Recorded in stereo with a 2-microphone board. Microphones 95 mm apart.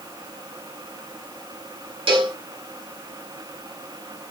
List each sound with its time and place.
2.1 s a cowbell: 65° right (ahead or behind), 1.3 m